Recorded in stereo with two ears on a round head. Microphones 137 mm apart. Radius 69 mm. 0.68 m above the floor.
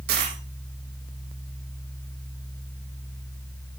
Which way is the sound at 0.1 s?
70° right (ahead or behind).